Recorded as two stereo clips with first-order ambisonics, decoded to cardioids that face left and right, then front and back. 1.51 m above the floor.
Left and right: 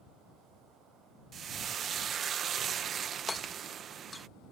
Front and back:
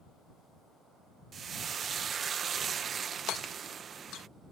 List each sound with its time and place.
1.3 s frying: 130° right
3.3 s hammering: 10° left